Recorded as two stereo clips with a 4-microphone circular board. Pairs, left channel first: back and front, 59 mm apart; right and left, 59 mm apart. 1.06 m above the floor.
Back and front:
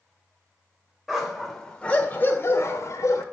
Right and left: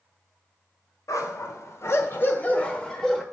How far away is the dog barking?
About 1.4 m.